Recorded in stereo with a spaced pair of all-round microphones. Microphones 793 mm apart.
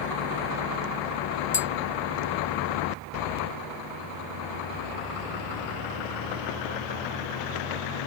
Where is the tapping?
35° left (ahead or behind).